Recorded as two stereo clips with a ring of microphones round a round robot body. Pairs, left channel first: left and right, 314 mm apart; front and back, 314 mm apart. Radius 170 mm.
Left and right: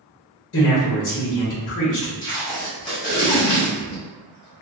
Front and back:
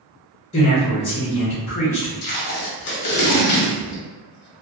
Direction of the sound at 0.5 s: 60° left.